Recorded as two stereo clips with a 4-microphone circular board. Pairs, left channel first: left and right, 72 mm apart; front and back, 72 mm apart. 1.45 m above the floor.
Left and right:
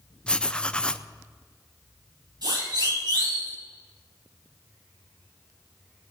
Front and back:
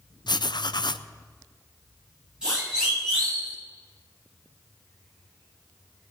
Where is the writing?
15° left, 0.6 m.